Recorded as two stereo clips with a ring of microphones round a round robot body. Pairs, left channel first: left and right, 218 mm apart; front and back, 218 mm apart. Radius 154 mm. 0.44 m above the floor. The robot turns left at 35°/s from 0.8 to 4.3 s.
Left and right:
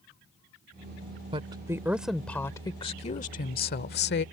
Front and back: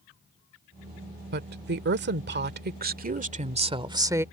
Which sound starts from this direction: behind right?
A woman speaking, at 1.3 s.